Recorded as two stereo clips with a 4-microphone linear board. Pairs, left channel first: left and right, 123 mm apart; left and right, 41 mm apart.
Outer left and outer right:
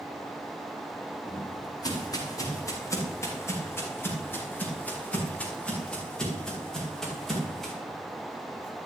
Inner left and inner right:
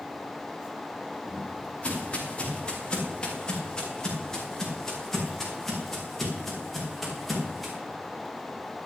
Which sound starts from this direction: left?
Footsteps, at 1.2 s.